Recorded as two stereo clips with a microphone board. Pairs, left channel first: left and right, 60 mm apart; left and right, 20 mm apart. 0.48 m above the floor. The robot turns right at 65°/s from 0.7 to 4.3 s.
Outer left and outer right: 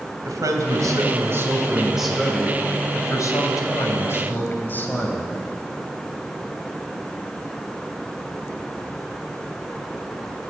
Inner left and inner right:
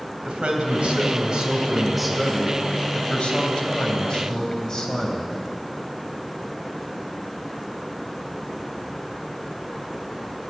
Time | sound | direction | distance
0.2 | a man speaking | 90° right | 2.5 m